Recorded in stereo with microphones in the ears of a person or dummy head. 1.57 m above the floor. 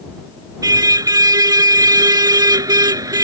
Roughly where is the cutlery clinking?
I don't hear cutlery clinking.